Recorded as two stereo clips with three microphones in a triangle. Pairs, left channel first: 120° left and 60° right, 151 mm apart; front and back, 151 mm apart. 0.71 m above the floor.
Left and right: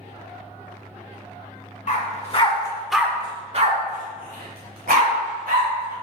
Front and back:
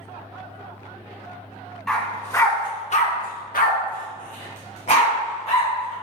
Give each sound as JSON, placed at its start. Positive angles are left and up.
{"t": 1.9, "sound": "a dog barking", "azimuth_deg": 85, "distance_m": 0.9}